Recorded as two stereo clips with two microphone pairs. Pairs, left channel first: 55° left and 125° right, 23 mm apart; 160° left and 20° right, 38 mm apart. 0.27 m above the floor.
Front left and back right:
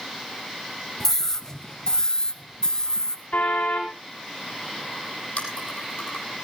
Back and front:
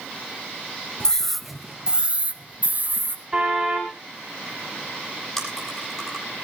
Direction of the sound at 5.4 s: 80° left.